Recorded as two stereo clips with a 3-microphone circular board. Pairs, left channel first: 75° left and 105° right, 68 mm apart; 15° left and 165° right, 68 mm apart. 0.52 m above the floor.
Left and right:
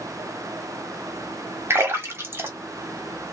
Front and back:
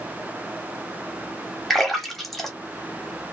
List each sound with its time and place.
1.7 s a splash: 75° right, 1.0 m